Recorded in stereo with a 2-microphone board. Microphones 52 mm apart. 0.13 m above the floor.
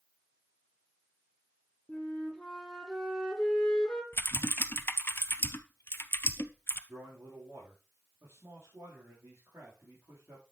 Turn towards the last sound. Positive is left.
turn(degrees=-50)  # may be behind; listen again after turning